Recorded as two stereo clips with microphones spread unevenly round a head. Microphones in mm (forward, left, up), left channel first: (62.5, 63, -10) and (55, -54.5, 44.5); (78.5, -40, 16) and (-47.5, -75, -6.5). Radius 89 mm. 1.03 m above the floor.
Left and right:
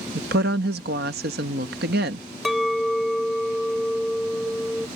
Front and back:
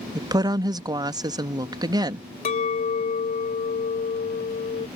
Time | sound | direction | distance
0.1 | a woman speaking | 105° right | ?
2.5 | a clink | 10° right | ?